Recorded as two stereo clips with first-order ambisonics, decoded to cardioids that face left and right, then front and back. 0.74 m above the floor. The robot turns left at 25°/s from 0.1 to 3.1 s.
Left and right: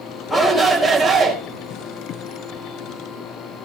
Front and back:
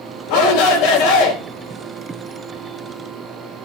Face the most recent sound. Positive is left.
turn(degrees=-60)